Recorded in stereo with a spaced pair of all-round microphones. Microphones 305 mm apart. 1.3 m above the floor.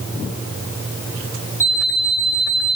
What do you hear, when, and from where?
1.6 s an alarm clock: 10° left (ahead or behind), 3 m